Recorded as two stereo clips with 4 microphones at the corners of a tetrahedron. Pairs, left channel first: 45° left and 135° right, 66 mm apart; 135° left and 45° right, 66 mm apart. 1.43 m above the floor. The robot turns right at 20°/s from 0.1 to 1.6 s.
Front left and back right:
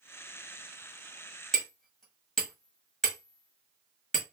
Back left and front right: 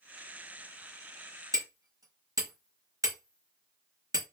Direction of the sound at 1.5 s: 35° right.